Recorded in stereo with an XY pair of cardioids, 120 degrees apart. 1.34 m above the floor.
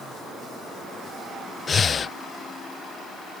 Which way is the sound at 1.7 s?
30° left.